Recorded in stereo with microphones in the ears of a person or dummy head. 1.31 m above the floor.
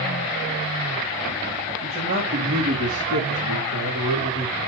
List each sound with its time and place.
1.8 s a man speaking: 45° right (ahead or behind), 2 m; by 4.6 s 75° right (ahead or behind), 3.5 m